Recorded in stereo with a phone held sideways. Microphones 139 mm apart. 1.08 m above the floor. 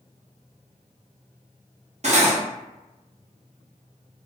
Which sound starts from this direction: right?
Cutlery clinking, at 2.0 s.